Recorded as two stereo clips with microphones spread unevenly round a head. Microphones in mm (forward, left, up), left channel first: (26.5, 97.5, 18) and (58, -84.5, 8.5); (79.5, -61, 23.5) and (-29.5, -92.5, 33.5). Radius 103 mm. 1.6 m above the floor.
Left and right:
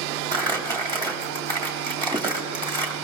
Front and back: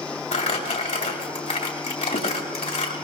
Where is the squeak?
I don't hear a squeak.